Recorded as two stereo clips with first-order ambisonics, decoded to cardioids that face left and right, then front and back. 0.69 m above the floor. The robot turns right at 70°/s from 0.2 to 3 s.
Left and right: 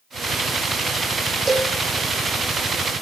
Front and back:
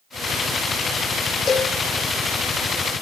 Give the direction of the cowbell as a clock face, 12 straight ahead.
1 o'clock.